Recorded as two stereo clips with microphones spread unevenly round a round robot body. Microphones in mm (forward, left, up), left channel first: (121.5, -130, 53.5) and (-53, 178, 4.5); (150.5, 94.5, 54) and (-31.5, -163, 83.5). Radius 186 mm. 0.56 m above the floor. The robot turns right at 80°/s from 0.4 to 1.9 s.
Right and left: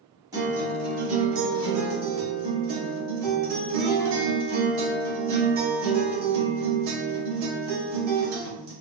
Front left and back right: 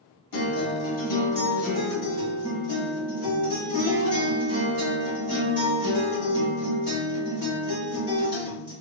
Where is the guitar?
40° left, 1.2 m; by 8.7 s 160° left, 1.2 m.